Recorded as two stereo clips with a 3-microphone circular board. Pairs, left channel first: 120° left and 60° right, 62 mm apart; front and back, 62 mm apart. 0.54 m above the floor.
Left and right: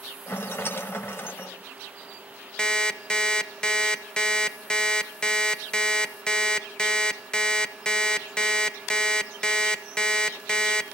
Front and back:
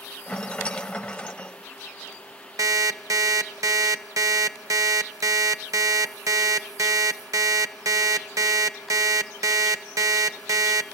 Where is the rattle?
70° left, 0.7 m.